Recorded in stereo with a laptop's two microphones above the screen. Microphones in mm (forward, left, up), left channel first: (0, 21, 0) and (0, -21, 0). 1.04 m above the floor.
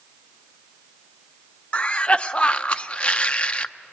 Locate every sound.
1.7 s a cough: 25° left (ahead or behind), 0.5 m